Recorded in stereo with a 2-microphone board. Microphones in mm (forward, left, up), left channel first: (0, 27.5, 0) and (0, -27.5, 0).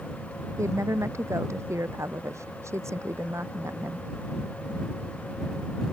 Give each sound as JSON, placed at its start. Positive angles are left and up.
{"t": 0.6, "sound": "a woman speaking", "side_deg": -65}